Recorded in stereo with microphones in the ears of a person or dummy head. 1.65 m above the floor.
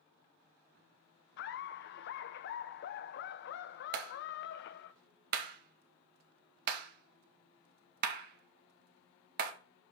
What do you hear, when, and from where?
1.4 s laughter: 45° left (ahead or behind), 0.7 m
3.9 s a clap: 50° right (ahead or behind), 1.8 m